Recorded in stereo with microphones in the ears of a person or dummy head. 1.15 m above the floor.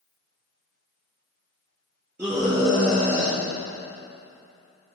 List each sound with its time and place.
2.2 s a scream: 10° right (ahead or behind), 2 m; by 5.0 s 50° left (ahead or behind), 3 m